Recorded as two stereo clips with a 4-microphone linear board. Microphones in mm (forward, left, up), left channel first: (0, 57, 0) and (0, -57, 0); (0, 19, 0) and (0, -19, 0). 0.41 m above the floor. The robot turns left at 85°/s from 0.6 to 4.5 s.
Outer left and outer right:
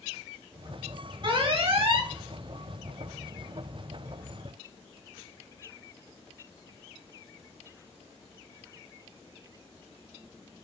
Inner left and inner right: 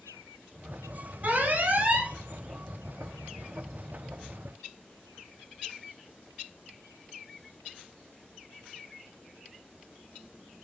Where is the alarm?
55° right, 3 m; by 2.1 s 135° right, 3 m.